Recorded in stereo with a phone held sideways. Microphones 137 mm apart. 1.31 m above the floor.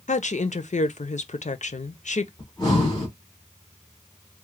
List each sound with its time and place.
0.1 s a woman speaking: 70° left (ahead or behind), 0.5 m
2.4 s breathing: 30° left (ahead or behind), 1.9 m